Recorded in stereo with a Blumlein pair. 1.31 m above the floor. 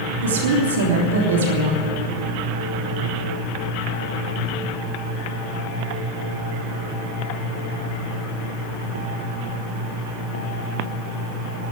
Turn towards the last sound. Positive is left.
turn(degrees=-60)